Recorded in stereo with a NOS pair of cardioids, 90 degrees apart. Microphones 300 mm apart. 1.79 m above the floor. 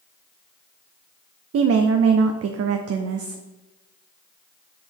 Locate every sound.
1.5 s a woman speaking: 50° right, 0.7 m